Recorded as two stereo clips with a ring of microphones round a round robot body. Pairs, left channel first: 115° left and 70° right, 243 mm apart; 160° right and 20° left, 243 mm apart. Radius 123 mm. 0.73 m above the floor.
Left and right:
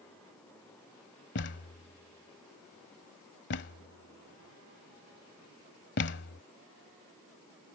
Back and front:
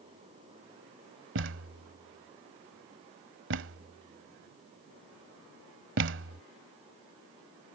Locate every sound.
1.4 s a thud: 65° left